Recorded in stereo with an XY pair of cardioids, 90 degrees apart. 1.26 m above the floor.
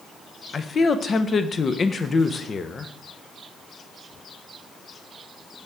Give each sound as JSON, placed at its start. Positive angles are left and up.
{"t": 0.5, "sound": "a man speaking", "azimuth_deg": 40, "distance_m": 0.7}